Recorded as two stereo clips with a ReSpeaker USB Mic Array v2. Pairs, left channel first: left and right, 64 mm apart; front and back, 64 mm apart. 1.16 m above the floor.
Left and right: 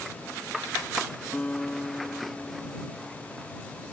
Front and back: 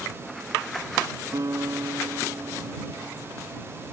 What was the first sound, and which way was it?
A guitar, 160° left.